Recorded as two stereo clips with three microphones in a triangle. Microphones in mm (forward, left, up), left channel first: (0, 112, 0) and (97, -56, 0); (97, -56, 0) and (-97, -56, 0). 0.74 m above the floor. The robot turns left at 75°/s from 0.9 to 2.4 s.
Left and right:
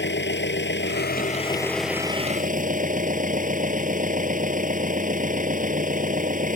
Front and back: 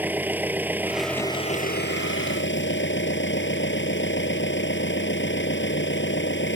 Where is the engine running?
100° left; by 6.6 s 15° right.